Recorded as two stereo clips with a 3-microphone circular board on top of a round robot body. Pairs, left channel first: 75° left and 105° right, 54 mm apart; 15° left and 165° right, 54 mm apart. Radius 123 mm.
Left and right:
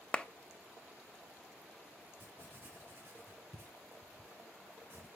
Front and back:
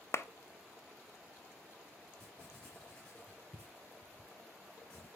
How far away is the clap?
About 0.5 m.